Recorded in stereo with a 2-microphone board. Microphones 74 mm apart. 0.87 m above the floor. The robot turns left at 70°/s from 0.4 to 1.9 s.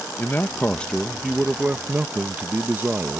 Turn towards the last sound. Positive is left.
turn(degrees=-50)